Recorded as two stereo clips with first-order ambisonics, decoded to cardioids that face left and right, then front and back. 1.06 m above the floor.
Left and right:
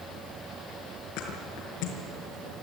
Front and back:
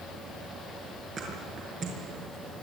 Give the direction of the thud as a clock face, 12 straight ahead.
8 o'clock.